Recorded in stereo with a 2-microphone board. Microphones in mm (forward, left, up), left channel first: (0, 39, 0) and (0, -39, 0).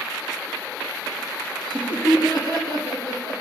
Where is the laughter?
65° right (ahead or behind), 5.5 m.